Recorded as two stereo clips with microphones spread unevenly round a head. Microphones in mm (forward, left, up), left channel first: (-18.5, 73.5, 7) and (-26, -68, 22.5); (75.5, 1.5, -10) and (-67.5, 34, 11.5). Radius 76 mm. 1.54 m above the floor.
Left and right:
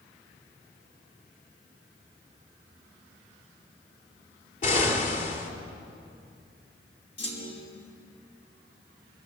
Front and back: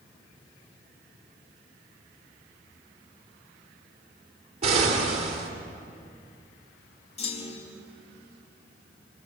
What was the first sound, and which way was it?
An explosion, 120° left.